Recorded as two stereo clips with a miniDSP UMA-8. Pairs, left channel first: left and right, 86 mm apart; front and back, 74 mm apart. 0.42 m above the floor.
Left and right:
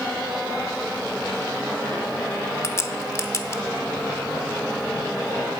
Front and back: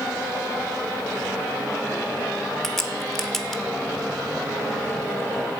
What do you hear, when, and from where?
2.6 s a crack: 85° left, 0.6 m